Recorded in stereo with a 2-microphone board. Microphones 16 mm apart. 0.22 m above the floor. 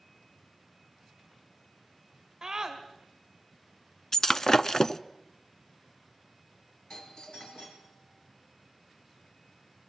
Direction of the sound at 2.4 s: 30° right (ahead or behind).